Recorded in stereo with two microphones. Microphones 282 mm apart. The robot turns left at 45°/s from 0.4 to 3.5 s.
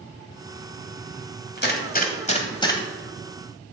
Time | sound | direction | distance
1.6 | a gunshot | 40° left (ahead or behind) | 1.5 m